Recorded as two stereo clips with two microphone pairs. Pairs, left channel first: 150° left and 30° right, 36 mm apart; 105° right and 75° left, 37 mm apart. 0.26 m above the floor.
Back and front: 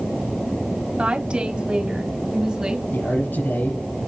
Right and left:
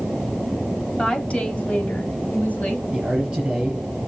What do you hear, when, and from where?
1.0 s a woman speaking: 60° right, 1.6 m; by 2.8 s 100° right, 1.9 m
2.9 s a man speaking: 145° left, 5 m